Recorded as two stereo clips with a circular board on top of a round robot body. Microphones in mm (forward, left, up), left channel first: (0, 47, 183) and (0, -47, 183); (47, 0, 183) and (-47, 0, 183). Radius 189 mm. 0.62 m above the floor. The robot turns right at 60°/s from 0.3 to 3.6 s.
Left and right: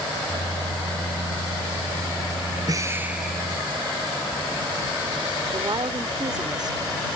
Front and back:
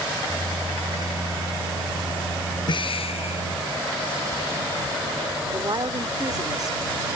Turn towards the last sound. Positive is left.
turn(degrees=-130)